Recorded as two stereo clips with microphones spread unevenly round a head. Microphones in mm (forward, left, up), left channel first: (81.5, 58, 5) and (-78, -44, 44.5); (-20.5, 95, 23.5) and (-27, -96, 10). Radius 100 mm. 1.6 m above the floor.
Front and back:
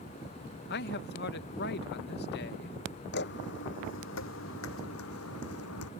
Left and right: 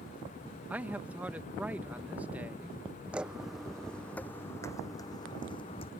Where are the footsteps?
5° right; by 5.9 s 25° left.